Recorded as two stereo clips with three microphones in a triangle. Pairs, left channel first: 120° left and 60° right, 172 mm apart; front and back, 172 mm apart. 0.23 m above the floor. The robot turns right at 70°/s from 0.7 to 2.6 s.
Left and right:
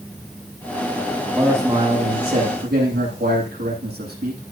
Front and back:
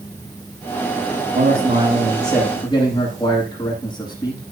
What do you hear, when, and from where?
1.3 s a man speaking: 150° right, 9.5 m; by 4.4 s 60° right, 9.5 m